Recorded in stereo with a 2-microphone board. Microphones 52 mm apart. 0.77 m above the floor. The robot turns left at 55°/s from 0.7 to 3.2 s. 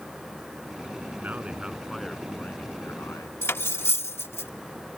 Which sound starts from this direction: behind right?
A man speaking, at 1.2 s.